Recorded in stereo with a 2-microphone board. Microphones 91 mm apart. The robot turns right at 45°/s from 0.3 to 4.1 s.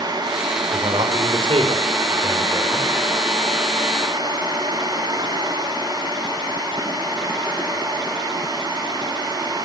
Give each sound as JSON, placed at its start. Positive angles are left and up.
{"t": 0.7, "sound": "a man speaking", "azimuth_deg": -120, "distance_m": 6.0}